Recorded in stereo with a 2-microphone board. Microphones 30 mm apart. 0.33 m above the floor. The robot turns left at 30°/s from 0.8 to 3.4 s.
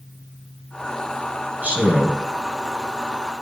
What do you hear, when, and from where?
1.6 s a man speaking: 65° right (ahead or behind), 2.5 m